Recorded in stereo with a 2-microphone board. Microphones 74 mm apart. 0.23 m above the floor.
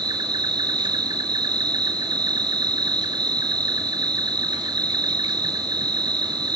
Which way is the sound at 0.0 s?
75° right (ahead or behind).